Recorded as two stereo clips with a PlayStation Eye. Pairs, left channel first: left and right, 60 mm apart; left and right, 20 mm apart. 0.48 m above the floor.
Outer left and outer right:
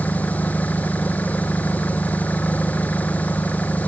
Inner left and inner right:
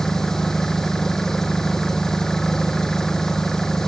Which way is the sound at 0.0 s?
25° left (ahead or behind).